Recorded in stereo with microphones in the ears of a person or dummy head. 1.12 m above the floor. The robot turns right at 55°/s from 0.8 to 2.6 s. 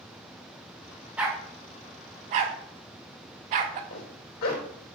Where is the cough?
I don't hear a cough.